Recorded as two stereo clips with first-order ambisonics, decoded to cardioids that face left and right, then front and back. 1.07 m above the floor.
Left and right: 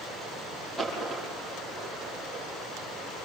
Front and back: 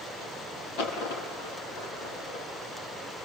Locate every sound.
0.8 s a dropped coin: 10° left, 6 m